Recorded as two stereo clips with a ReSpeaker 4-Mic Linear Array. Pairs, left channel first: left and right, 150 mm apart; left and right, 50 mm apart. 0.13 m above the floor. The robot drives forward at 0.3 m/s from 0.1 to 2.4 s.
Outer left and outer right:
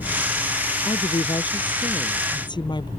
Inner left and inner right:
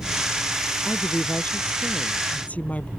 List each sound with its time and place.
0.8 s a woman speaking: 35° left (ahead or behind); by 2.9 s 30° left (ahead or behind)